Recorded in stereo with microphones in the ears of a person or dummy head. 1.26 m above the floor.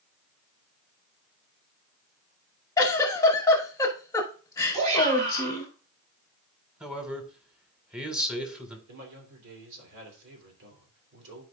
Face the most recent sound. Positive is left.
turn(degrees=-70)  # may be behind; listen again after turning